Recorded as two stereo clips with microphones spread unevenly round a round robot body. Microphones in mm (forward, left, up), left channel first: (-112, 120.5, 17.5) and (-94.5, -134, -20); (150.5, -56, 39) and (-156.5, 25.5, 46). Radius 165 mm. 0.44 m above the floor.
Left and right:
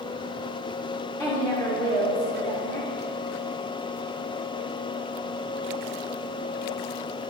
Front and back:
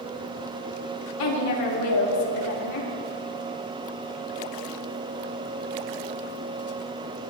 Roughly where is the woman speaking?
Ahead.